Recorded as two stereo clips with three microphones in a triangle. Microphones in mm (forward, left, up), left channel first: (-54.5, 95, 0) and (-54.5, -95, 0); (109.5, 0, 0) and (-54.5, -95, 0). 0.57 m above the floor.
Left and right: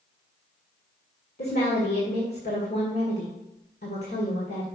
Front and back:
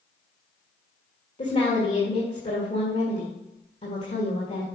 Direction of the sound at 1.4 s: 75° left.